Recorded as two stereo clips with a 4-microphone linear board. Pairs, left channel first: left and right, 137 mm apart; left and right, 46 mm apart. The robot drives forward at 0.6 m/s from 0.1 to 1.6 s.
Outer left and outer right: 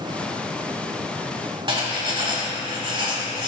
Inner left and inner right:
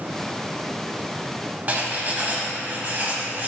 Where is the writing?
35° right (ahead or behind), 1.1 m.